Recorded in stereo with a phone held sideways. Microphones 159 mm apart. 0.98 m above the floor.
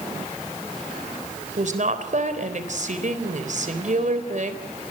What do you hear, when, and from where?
1.6 s a woman speaking: 60° right (ahead or behind), 4 m